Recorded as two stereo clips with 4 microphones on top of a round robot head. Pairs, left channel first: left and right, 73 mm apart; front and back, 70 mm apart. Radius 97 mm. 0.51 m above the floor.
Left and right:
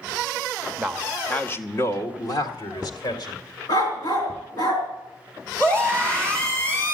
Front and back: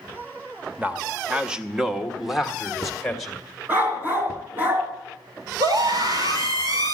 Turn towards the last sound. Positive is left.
turn(degrees=160)